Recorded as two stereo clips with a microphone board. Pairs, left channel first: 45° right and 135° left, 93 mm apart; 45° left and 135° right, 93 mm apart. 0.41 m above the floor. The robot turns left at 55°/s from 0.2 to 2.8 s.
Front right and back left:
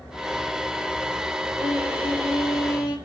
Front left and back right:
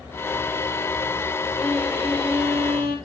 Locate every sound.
1.6 s a violin: 35° right, 6.5 m; by 3.0 s 100° right, 6.5 m